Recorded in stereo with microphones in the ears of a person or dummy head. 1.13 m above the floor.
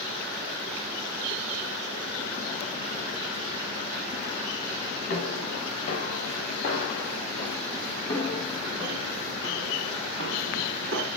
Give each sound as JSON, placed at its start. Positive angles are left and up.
{"t": 5.1, "sound": "footsteps", "side_deg": 50, "distance_m": 5.5}